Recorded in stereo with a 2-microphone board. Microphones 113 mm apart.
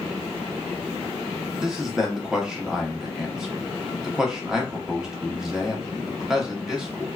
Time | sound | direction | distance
1.6 | a man speaking | 5° right (ahead or behind) | 0.7 m